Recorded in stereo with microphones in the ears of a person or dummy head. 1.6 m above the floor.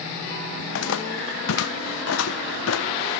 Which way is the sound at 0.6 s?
65° left (ahead or behind).